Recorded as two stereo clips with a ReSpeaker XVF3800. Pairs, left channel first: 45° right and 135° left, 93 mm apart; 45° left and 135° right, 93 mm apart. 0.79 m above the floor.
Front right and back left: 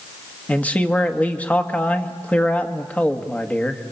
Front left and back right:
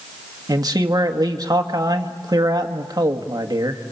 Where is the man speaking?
115° right, 1.4 m.